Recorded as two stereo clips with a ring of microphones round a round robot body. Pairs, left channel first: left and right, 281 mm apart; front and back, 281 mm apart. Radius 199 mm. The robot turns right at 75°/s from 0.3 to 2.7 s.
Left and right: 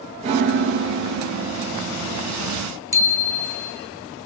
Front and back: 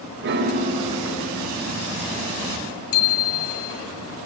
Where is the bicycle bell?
10° right, 3 m.